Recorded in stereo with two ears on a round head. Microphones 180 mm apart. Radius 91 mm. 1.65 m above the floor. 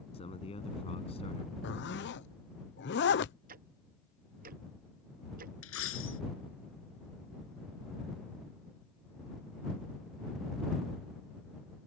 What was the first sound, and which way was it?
A man speaking, 30° left (ahead or behind).